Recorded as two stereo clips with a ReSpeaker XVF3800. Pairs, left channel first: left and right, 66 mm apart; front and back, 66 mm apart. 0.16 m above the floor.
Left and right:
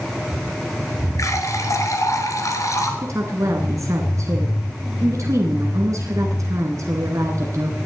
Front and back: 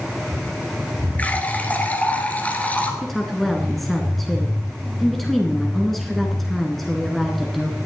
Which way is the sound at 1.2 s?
65° left.